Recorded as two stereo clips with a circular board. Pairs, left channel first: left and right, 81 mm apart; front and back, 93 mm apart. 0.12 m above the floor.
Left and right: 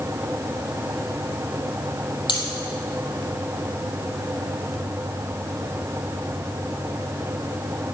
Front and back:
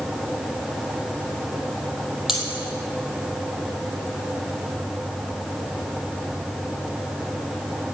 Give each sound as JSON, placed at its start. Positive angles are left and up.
{"t": 2.3, "sound": "cutlery clinking", "azimuth_deg": 95, "distance_m": 2.0}